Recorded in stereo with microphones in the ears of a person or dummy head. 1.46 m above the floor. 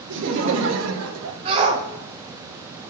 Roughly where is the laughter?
Right.